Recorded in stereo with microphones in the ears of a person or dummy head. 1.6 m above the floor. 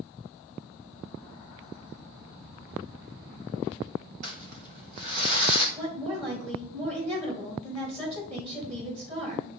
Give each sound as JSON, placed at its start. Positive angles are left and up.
{"t": 4.2, "sound": "crumpling", "side_deg": -45, "distance_m": 1.5}
{"t": 5.8, "sound": "a woman speaking", "side_deg": -40, "distance_m": 3.0}